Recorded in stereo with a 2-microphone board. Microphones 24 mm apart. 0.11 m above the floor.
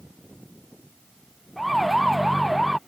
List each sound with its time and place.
1.6 s a siren: centre (ahead or behind); by 2.8 s 5° right (ahead or behind)